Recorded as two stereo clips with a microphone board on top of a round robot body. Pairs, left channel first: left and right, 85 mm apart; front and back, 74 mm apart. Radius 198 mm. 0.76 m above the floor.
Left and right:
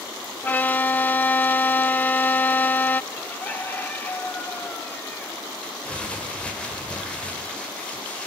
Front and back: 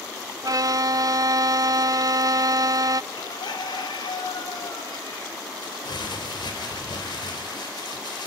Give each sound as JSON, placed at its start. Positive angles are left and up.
{"t": 0.4, "sound": "a violin", "azimuth_deg": 155, "distance_m": 0.5}
{"t": 3.1, "sound": "a bird", "azimuth_deg": 20, "distance_m": 2.5}
{"t": 5.6, "sound": "crumpling", "azimuth_deg": 15, "distance_m": 5.0}